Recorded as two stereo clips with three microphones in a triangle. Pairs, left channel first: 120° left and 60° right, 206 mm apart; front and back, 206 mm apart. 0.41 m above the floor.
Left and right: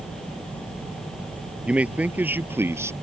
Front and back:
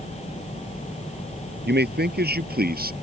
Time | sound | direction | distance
1.6 | a man speaking | 145° right | ?